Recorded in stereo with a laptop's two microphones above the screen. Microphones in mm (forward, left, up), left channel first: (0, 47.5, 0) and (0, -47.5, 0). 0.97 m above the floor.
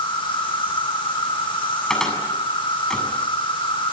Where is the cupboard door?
5° left (ahead or behind), 7.5 m.